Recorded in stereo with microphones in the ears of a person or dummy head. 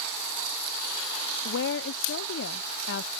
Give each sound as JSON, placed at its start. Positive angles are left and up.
{"t": 1.4, "sound": "a woman speaking", "side_deg": 70}